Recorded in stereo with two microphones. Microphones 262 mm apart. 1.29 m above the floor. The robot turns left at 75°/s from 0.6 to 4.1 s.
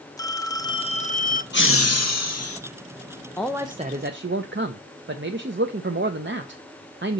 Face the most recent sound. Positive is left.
turn(degrees=-50)